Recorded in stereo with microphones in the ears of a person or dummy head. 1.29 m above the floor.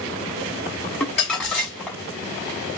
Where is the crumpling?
Centre (ahead or behind), 1.0 m.